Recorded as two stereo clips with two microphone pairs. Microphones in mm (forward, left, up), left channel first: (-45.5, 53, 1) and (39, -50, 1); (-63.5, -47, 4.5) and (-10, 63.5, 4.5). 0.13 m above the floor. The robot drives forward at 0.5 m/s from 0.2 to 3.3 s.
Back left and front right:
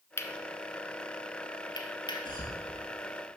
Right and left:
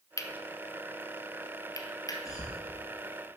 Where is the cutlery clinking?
165° right, 0.9 m; by 2.2 s 175° right, 1.7 m.